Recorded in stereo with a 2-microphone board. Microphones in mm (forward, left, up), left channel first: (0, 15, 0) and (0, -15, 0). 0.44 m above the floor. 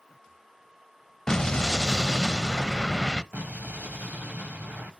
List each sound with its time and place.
1.3 s an explosion: 15° left (ahead or behind), 0.7 m
3.3 s an explosion: 65° right (ahead or behind), 2 m